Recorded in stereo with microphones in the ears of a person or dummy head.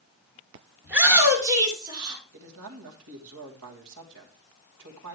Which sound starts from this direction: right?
A man speaking, at 2.3 s.